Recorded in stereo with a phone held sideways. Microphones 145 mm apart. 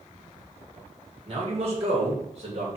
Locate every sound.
1.3 s a man speaking: 45° right (ahead or behind), 2 m